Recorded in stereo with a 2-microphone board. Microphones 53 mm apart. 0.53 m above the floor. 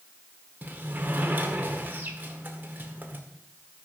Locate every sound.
0.6 s a sliding door: 35° right (ahead or behind), 1.7 m